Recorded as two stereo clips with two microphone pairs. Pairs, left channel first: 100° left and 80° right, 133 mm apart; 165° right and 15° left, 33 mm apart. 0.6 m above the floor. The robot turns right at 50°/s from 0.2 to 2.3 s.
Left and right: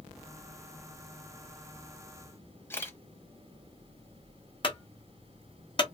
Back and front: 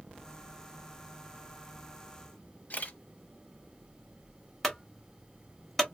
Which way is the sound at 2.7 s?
170° left.